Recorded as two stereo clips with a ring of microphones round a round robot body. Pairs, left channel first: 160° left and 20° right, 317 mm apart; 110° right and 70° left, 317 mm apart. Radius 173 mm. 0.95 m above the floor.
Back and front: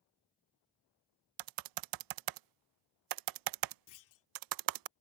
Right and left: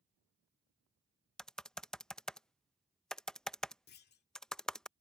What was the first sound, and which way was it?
Typing on a keyboard, 25° right.